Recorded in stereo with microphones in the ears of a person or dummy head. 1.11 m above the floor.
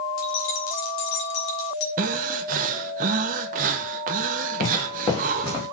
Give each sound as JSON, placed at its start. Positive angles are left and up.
{"t": 0.2, "sound": "keys jangling", "side_deg": 80, "distance_m": 2.5}
{"t": 2.0, "sound": "breathing", "side_deg": -45, "distance_m": 1.0}
{"t": 4.6, "sound": "footsteps", "side_deg": 35, "distance_m": 5.5}